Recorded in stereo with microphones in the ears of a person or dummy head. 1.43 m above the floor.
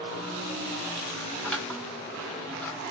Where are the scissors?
5° left (ahead or behind), 1.8 m.